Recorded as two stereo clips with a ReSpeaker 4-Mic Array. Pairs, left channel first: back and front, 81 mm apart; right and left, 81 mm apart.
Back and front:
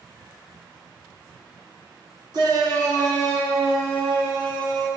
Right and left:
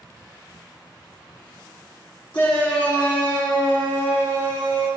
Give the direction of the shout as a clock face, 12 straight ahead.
1 o'clock.